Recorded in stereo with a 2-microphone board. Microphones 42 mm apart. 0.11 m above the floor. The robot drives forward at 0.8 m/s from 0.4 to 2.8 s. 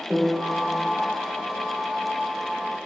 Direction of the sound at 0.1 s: 25° right (ahead or behind).